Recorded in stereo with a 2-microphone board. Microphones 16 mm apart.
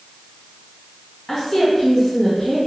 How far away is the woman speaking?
About 1.9 m.